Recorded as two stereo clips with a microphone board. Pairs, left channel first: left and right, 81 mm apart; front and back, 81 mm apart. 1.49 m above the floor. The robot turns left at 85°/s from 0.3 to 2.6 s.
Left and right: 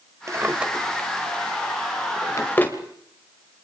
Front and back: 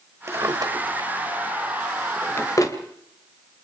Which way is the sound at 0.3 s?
135° right.